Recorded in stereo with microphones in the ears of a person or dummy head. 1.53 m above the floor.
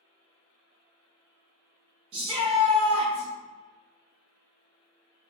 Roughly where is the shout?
Right.